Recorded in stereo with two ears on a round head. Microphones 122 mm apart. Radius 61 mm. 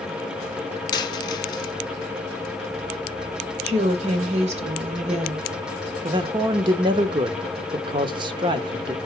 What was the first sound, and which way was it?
A dropped coin, 30° left (ahead or behind).